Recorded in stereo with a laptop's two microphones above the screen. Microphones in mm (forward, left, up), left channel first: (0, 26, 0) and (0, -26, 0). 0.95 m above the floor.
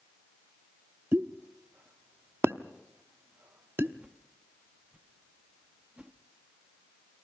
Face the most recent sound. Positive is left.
turn(degrees=-25)  # may be behind; listen again after turning